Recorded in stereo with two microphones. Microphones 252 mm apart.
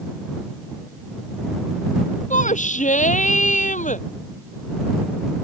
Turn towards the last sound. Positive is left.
turn(degrees=30)  # may be behind; listen again after turning